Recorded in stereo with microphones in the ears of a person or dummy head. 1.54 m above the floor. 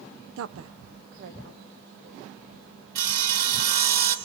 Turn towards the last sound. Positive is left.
turn(degrees=-50)  # may be behind; listen again after turning